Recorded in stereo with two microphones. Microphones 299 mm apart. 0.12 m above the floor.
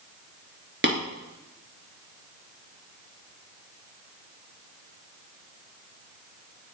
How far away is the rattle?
No rattle in this recording.